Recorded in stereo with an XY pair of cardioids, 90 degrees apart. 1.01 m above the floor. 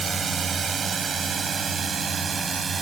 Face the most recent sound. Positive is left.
turn(degrees=-45)